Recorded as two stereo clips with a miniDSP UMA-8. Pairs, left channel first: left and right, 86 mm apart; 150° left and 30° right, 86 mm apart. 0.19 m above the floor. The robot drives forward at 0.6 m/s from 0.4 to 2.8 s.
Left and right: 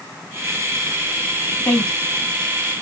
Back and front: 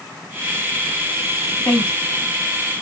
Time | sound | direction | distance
1.6 | a woman speaking | 125° left | 1.4 m